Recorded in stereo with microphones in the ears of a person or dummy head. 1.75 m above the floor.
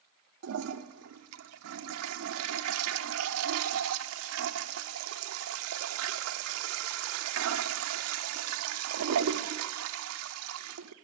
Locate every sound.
0.4 s a toilet flushing: 85° right, 0.7 m